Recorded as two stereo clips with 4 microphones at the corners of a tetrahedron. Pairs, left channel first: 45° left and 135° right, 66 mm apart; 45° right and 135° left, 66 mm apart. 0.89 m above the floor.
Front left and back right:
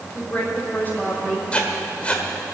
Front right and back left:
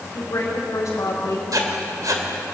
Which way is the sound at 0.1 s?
15° right.